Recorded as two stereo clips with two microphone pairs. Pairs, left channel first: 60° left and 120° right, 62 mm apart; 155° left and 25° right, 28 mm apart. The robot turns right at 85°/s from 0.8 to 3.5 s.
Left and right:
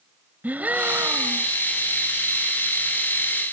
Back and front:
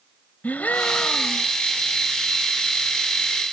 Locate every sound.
0.4 s a gasp: straight behind; by 1.5 s 120° right